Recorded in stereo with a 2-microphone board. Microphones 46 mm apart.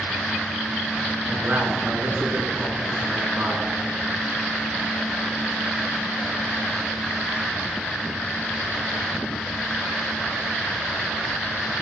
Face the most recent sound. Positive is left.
turn(degrees=-50)  # may be behind; listen again after turning